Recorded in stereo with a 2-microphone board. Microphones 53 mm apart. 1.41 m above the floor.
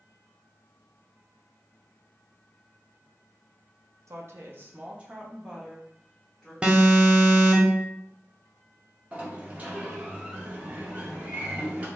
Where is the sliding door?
30° right (ahead or behind), 0.8 m.